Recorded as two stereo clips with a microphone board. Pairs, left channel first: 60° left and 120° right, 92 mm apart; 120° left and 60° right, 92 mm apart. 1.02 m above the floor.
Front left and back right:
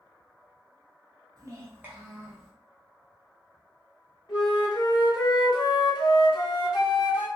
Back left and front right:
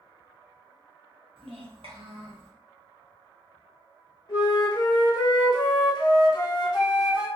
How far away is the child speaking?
About 0.9 m.